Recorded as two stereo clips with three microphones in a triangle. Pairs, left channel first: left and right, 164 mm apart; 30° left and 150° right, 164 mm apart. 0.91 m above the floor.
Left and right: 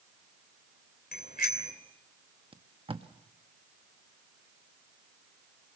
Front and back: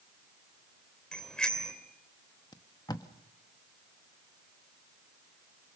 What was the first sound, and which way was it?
A bicycle bell, 115° left.